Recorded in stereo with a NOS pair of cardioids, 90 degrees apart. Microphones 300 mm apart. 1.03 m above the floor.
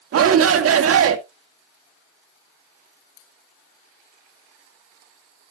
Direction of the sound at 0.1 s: 55° right.